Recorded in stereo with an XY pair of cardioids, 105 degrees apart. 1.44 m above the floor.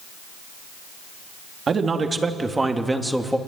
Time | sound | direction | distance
1.7 | a man speaking | 40° right | 3 m